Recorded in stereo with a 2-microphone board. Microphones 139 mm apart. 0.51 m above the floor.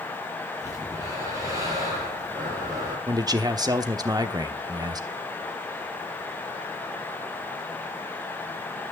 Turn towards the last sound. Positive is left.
turn(degrees=-30)  # may be behind; listen again after turning